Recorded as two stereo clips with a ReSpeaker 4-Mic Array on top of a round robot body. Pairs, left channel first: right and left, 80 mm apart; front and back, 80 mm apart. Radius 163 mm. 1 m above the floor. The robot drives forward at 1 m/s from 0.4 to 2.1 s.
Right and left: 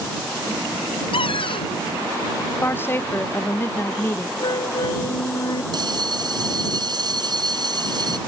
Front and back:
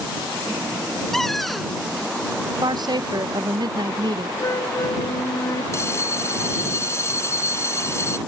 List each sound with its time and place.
1.1 s a cupboard door: 85° right; by 1.7 s 90° right
2.6 s a woman speaking: 150° right
4.4 s a flute: 55° right
5.7 s a bell: 55° left